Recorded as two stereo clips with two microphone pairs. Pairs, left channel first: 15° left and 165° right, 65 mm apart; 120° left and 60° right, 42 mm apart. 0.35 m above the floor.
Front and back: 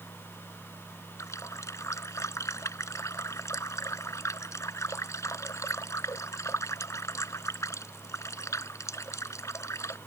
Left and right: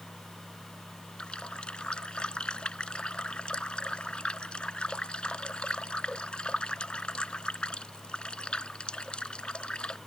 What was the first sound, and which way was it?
A running tap, 55° left.